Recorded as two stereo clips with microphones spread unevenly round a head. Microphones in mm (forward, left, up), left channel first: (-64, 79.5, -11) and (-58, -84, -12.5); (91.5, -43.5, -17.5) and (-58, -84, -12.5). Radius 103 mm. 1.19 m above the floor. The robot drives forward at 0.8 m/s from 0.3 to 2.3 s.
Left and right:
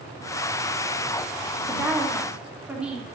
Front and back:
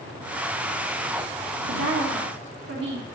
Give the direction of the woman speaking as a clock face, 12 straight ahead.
6 o'clock.